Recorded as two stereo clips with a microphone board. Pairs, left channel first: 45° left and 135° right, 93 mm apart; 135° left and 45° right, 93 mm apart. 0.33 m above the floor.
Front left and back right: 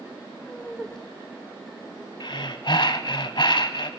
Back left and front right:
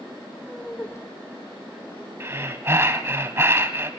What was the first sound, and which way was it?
Laughter, 20° right.